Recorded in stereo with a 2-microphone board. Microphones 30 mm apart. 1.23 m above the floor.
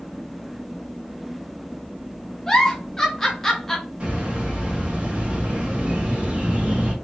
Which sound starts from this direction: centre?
A giggle, at 2.5 s.